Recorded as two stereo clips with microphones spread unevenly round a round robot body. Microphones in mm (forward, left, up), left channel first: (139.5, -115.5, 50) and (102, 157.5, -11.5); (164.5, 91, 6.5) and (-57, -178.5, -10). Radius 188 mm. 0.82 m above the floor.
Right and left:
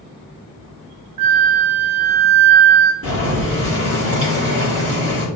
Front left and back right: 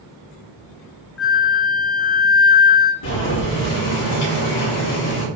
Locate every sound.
1.2 s a flute: 100° left, 0.5 m
3.0 s boiling: 55° left, 2.5 m